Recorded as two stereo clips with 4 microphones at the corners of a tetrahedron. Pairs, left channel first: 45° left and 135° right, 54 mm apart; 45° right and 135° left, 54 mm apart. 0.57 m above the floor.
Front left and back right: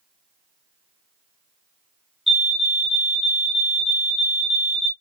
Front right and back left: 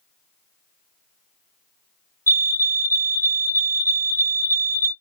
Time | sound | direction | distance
2.3 | a fire alarm | 140° left | 2.5 m